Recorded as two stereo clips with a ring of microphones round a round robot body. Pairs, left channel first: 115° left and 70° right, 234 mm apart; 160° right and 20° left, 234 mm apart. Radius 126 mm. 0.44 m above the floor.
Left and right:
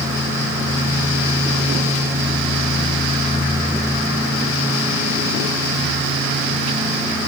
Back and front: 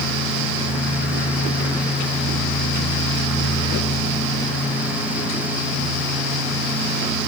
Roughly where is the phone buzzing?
I don't hear a phone buzzing.